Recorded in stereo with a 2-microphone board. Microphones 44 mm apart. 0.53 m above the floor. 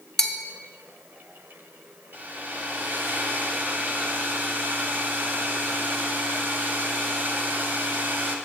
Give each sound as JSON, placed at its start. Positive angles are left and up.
{"t": 0.2, "sound": "a bell", "side_deg": 10, "distance_m": 0.6}
{"t": 2.1, "sound": "a hair dryer", "side_deg": -45, "distance_m": 1.0}